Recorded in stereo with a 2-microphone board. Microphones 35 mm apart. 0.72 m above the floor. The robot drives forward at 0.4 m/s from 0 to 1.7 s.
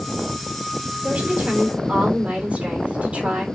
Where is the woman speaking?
35° right (ahead or behind), 2.5 m.